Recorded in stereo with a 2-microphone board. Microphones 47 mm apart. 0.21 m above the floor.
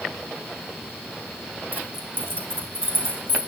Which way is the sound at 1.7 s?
50° right (ahead or behind).